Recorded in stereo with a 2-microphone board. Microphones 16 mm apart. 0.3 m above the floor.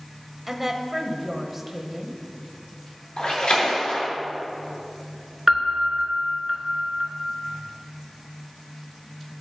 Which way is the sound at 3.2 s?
75° left (ahead or behind).